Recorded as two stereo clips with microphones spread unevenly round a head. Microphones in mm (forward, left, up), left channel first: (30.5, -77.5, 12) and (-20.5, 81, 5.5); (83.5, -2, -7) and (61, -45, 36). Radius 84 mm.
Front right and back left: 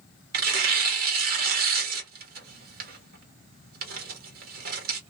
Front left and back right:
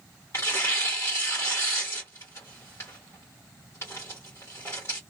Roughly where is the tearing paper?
Behind left.